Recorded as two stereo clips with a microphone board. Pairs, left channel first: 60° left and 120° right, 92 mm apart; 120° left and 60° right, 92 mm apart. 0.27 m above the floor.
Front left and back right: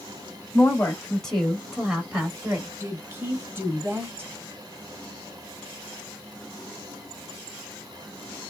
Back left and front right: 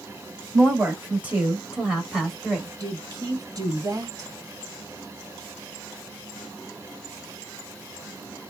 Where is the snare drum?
No snare drum in this recording.